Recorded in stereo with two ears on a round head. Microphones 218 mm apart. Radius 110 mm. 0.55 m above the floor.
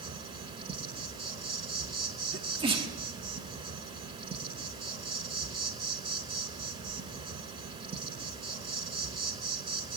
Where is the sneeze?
20° right (ahead or behind), 1.2 m.